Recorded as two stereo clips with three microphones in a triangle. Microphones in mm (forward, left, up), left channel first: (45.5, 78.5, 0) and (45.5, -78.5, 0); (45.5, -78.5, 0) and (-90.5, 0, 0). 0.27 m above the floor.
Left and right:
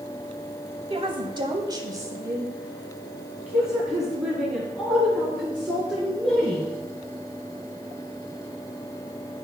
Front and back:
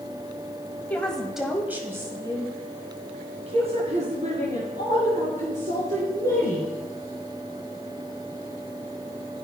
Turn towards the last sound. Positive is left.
turn(degrees=170)